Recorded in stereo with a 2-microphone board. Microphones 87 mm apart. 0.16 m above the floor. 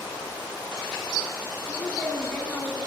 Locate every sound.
1.7 s a woman speaking: 15° left (ahead or behind), 1.3 m